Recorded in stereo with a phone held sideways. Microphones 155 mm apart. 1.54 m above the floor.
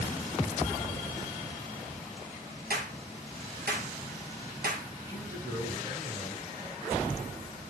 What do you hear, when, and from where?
2.7 s a clap: 75° right (ahead or behind), 1.9 m
5.0 s a man speaking: 20° right (ahead or behind), 6 m